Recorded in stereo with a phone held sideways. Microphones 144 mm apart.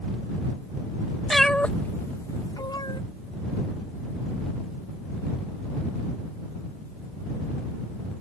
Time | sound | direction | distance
1.3 | a cat meowing | centre (ahead or behind) | ?